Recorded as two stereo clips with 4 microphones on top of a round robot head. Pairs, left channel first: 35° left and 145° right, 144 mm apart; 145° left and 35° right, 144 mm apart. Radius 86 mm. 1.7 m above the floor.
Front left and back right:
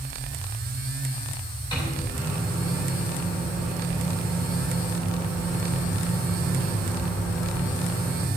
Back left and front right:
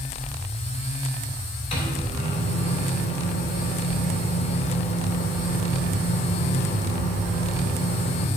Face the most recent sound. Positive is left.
turn(degrees=95)